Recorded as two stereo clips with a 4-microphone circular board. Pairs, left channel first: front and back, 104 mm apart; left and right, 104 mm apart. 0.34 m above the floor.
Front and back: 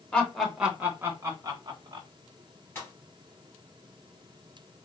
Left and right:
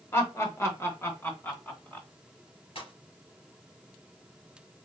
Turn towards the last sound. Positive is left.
turn(degrees=70)